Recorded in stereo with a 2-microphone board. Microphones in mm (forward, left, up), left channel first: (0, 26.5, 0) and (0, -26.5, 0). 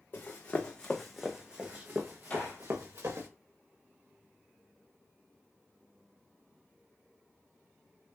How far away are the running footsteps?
About 0.9 m.